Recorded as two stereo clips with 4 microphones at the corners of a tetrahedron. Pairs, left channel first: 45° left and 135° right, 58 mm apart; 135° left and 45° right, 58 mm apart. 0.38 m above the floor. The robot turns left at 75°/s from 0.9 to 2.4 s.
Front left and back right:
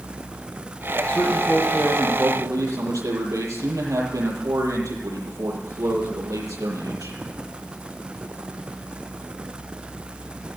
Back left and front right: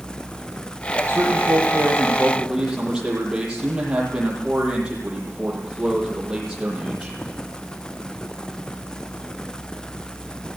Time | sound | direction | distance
1.1 | a man speaking | 20° right | 8 m